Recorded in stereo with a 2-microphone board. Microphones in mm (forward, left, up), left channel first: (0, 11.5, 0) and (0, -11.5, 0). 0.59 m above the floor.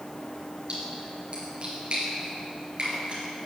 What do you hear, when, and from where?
0.7 s a splash: 40° right (ahead or behind), 4.5 m